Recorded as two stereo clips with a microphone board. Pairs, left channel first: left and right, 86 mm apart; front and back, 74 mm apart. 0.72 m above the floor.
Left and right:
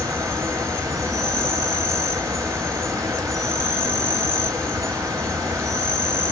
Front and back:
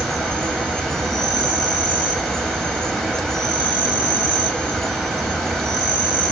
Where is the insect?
75° right, 0.9 m.